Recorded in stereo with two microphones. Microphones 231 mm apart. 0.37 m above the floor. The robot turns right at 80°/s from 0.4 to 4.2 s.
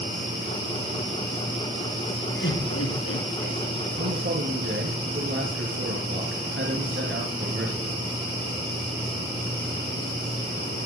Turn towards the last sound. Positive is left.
turn(degrees=-60)  # may be behind; listen again after turning